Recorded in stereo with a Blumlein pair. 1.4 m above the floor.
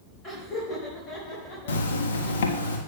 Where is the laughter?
25° left, 4 m; by 2.7 s 45° left, 5.5 m.